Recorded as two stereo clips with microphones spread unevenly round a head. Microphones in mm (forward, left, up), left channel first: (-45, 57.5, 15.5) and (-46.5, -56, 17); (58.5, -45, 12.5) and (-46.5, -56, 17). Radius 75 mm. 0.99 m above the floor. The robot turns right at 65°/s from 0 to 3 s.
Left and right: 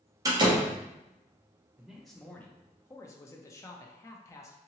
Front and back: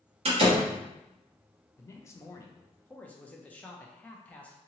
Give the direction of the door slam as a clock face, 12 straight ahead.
5 o'clock.